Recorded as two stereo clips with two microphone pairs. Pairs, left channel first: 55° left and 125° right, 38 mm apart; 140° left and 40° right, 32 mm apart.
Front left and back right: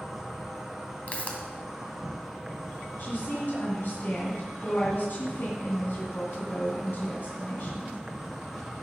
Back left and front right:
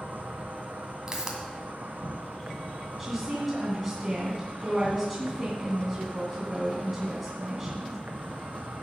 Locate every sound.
0.0 s an insect: 40° right, 1.6 m
1.1 s a pop: 20° left, 2 m
3.0 s a woman speaking: 40° left, 2.5 m